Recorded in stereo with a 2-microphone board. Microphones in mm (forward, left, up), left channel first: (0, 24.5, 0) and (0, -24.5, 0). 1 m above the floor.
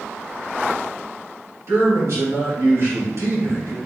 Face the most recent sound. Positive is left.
turn(degrees=-60)  # may be behind; listen again after turning